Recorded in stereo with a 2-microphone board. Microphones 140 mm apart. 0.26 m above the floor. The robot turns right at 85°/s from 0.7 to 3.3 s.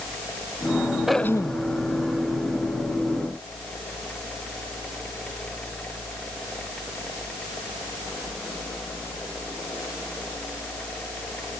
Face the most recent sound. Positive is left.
turn(degrees=-175)